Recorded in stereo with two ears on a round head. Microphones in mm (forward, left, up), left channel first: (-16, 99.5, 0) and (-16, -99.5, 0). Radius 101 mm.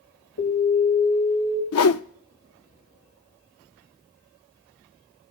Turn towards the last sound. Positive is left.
turn(degrees=75)  # may be behind; listen again after turning